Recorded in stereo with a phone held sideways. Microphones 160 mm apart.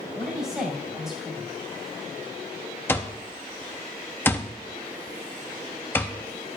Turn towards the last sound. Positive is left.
turn(degrees=15)  # may be behind; listen again after turning